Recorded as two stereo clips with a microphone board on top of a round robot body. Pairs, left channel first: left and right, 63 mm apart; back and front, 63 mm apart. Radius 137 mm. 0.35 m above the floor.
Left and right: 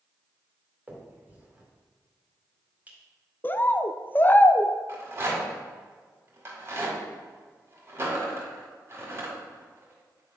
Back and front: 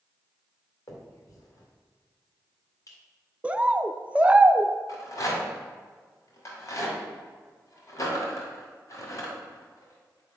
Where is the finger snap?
155° right, 2.0 m.